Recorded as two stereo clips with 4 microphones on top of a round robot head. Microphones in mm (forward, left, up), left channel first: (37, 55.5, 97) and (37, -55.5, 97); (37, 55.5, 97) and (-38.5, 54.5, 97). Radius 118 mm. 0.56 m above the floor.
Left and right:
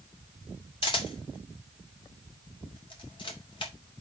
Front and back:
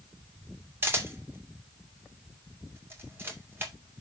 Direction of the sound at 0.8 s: 125° left.